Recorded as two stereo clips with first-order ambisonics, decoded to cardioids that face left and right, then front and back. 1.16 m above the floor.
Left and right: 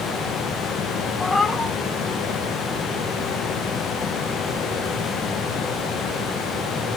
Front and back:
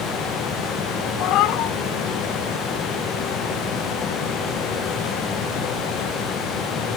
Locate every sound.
1.2 s a cat meowing: 10° left, 1.3 m